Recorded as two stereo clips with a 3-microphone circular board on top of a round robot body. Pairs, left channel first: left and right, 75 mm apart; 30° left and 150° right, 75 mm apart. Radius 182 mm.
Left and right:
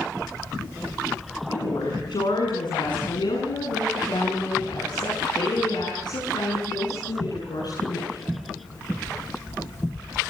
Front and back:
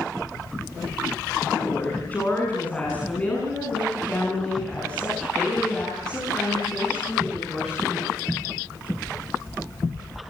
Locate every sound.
1.5 s a woman speaking: 95° left, 6.5 m; by 8.4 s 115° left, 9 m